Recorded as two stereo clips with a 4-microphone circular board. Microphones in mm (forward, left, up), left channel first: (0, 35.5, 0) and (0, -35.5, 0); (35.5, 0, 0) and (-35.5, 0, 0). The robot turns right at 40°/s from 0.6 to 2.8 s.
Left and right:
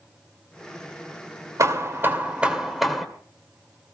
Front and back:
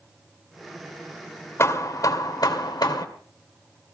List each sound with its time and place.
1.6 s hammering: 50° right, 2 m; by 3.0 s straight ahead, 2 m